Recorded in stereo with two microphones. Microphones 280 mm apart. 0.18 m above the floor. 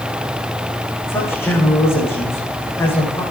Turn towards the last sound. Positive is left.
turn(degrees=10)  # may be behind; listen again after turning